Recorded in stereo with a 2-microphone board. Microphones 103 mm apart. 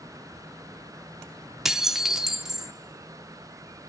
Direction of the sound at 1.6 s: 5° right (ahead or behind).